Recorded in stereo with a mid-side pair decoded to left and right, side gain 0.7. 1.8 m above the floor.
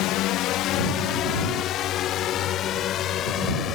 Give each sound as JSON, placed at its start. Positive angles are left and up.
{"t": 0.0, "sound": "a drone", "azimuth_deg": 60}